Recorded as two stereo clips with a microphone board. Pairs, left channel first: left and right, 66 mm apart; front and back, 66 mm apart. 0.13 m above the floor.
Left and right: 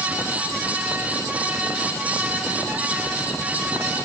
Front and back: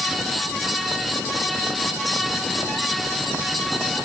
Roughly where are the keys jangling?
No keys jangling in this recording.